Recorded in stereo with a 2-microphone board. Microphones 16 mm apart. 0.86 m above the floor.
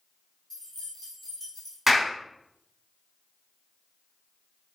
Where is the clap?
15° right (ahead or behind), 1.4 m.